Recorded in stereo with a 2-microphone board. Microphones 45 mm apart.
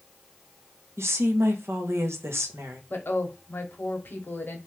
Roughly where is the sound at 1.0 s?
Right.